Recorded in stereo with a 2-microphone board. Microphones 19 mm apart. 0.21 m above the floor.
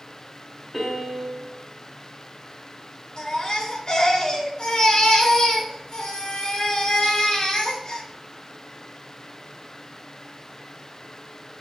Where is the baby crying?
50° left (ahead or behind), 2.5 m.